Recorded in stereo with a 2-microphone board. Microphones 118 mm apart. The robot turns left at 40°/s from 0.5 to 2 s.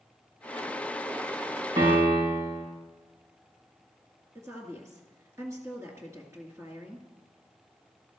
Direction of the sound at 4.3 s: 25° right (ahead or behind).